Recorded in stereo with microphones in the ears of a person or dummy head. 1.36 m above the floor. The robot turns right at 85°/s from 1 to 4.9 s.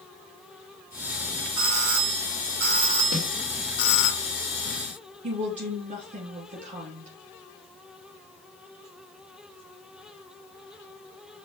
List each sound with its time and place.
1.6 s a doorbell: 150° right, 1.1 m; by 4.1 s 65° left, 1.1 m
3.1 s a snare drum: 70° right (ahead or behind), 1.6 m; by 3.3 s 55° right (ahead or behind), 1.6 m
5.2 s a woman speaking: 40° right (ahead or behind), 2.5 m